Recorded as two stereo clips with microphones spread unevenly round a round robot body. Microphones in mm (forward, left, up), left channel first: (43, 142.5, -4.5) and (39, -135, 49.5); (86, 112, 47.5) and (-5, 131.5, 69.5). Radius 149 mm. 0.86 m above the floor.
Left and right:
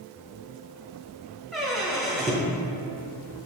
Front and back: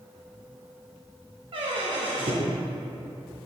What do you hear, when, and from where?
1.5 s a squeak: 175° right, 0.8 m